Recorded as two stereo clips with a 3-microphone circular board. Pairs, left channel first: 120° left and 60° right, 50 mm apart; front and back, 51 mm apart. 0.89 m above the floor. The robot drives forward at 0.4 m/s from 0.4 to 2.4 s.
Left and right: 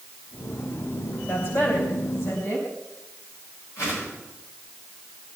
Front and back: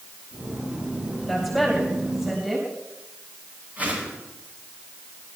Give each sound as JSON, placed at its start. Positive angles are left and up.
{"t": 1.3, "sound": "a woman speaking", "azimuth_deg": 90, "distance_m": 4.0}
{"t": 3.8, "sound": "a whoosh", "azimuth_deg": 120, "distance_m": 9.5}